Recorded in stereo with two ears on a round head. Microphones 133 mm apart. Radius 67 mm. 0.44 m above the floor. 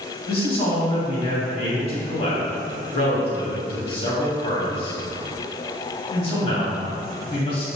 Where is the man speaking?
40° left (ahead or behind), 2.5 m.